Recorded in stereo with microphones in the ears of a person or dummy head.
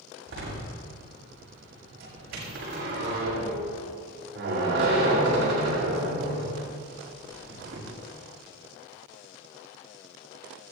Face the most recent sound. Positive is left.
turn(degrees=-60)  # may be behind; listen again after turning